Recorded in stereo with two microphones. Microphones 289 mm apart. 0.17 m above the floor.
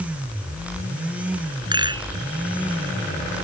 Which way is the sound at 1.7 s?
15° right (ahead or behind).